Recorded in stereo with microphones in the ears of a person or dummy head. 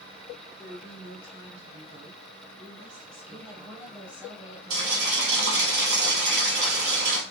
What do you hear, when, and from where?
0.6 s a woman speaking: 20° right (ahead or behind), 1.9 m
3.3 s a woman speaking: 10° right (ahead or behind), 1.0 m
4.7 s boiling: 60° right (ahead or behind), 1.6 m